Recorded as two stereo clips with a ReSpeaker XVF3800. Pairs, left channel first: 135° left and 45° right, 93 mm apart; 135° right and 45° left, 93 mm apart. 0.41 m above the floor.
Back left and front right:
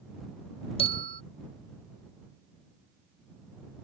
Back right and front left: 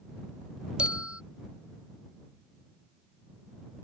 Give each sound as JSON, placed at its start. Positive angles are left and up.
{"t": 0.8, "sound": "a bell", "azimuth_deg": 125}